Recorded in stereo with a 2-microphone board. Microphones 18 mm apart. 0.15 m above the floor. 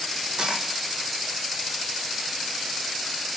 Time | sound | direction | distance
0.4 | a dropped coin | 60° right (ahead or behind) | 1.8 m